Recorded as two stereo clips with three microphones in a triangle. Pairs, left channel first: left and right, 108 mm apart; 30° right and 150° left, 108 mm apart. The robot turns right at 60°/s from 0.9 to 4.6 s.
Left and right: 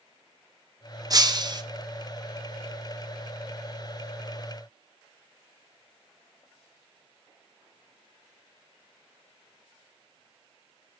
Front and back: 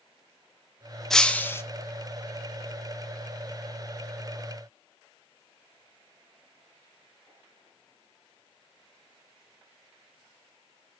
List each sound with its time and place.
1.1 s breaking glass: 115° right, 0.7 m; by 1.6 s 80° right, 0.7 m